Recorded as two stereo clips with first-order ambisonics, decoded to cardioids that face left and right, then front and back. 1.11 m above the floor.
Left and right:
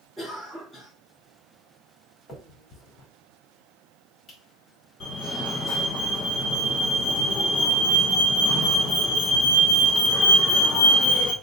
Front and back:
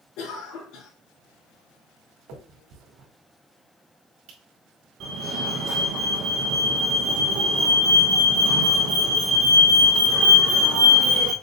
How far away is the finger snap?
About 2.0 m.